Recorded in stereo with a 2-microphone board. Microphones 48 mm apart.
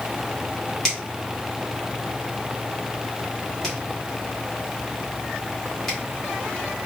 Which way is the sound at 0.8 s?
10° left (ahead or behind).